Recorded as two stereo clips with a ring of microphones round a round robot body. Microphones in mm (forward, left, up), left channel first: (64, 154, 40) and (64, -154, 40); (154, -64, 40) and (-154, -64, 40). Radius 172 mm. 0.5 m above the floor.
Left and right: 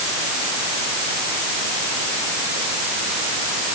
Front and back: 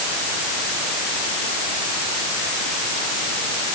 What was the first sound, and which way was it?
Only background noise.